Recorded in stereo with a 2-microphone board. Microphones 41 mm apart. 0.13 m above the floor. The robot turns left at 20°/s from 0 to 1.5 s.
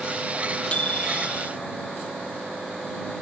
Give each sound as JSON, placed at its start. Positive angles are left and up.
{"t": 0.7, "sound": "a microwave", "side_deg": 25}